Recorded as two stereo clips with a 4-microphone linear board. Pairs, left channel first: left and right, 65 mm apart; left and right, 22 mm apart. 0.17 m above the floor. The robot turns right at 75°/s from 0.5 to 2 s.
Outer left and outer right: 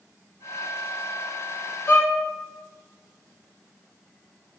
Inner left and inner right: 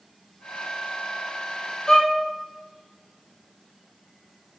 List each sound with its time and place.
1.9 s a violin: 35° left (ahead or behind), 2.0 m; by 2.2 s 40° left (ahead or behind), 2.0 m